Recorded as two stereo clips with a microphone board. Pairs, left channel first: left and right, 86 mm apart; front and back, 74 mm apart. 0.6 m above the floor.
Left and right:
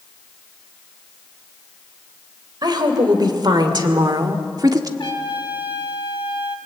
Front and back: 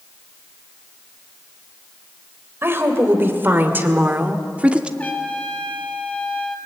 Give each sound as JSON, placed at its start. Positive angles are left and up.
{"t": 2.6, "sound": "a woman speaking", "azimuth_deg": -125, "distance_m": 3.0}
{"t": 5.0, "sound": "a trumpet", "azimuth_deg": 70, "distance_m": 2.0}